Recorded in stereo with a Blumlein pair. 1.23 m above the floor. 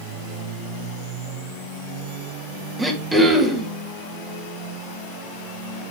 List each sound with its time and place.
2.8 s throat clearing: 10° right, 2.5 m